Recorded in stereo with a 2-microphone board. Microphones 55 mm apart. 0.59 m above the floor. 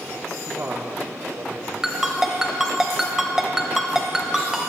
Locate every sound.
0.5 s a man speaking: 35° right (ahead or behind), 0.9 m; by 1.7 s 75° right (ahead or behind), 2.5 m
1.8 s a ringtone: 10° right (ahead or behind), 1.6 m